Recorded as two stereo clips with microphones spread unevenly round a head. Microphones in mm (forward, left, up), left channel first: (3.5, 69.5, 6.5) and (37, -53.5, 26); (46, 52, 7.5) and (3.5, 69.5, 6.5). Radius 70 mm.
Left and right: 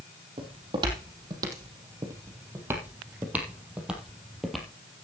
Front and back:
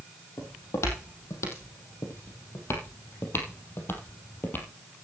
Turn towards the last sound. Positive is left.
turn(degrees=15)